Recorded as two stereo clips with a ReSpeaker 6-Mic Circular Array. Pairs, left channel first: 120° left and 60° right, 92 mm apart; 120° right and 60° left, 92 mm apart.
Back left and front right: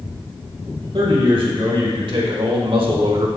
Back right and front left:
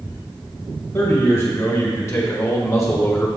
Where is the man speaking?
65° right, 3 m; by 3.3 s 60° right, 1.2 m.